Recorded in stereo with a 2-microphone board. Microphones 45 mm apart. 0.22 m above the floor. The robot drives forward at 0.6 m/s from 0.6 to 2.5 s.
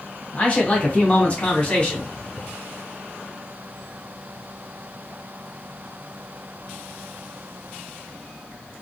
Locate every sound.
0.3 s a man speaking: 30° left (ahead or behind), 1.2 m; by 2.1 s 25° left (ahead or behind), 1.5 m